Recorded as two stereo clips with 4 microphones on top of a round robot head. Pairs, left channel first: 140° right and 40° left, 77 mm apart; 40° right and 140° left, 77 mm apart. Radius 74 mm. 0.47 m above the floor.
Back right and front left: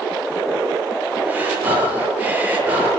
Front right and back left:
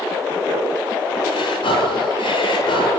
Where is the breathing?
30° right, 8.5 m.